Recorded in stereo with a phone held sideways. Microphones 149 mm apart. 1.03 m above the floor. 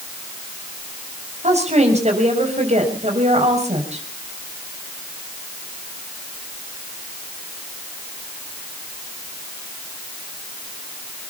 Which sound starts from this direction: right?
A woman speaking, at 1.4 s.